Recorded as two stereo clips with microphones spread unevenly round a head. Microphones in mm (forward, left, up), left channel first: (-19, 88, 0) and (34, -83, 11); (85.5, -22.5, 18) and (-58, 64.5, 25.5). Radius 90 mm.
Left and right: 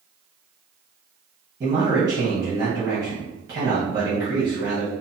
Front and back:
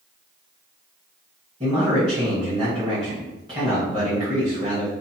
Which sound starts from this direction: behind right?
A man speaking, at 1.6 s.